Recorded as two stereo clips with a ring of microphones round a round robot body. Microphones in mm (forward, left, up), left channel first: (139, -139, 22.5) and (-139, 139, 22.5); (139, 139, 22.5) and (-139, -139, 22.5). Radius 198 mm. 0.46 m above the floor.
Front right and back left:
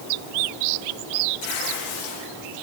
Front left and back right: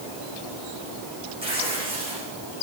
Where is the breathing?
No breathing in this recording.